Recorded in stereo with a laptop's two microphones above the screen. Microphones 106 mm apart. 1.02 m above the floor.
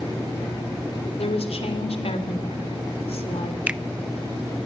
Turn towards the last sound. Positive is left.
turn(degrees=-10)  # may be behind; listen again after turning